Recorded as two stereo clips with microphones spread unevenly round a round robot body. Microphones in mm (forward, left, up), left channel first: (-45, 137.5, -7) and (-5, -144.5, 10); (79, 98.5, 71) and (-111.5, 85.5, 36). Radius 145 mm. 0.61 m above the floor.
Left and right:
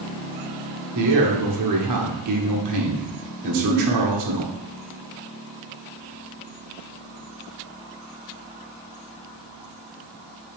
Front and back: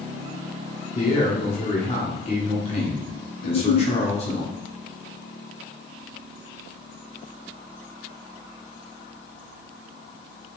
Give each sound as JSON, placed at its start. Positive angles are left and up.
{"t": 0.9, "sound": "a man speaking", "azimuth_deg": -60, "distance_m": 1.6}
{"t": 3.4, "sound": "a giggle", "azimuth_deg": 25, "distance_m": 0.8}